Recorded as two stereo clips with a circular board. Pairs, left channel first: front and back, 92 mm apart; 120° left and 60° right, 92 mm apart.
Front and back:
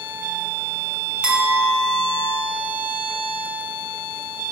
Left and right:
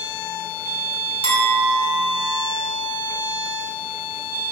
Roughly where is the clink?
Left.